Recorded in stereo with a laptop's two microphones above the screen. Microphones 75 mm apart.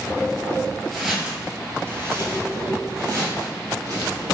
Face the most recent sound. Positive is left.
turn(degrees=-60)  # may be behind; listen again after turning